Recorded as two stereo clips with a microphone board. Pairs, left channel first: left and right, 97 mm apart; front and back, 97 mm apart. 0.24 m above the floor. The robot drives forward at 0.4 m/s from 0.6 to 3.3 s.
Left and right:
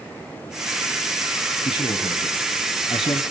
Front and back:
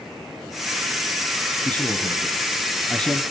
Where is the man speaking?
75° left, 5 m; by 3.2 s 85° left, 5 m.